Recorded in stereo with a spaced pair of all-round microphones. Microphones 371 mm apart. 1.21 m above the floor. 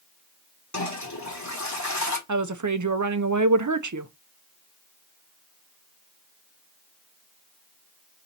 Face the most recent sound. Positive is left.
turn(degrees=-50)  # may be behind; listen again after turning